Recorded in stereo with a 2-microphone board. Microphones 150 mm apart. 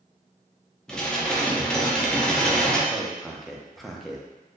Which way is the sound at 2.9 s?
Centre (ahead or behind).